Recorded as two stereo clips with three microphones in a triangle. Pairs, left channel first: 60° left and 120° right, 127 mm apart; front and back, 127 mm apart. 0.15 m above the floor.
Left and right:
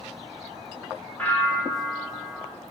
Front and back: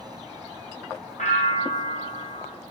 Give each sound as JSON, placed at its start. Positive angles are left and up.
{"t": 1.2, "sound": "a bell", "azimuth_deg": -20, "distance_m": 0.9}